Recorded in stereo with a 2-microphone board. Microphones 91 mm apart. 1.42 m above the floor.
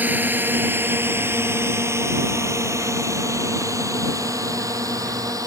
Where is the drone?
20° right (ahead or behind); by 5.5 s 40° right (ahead or behind).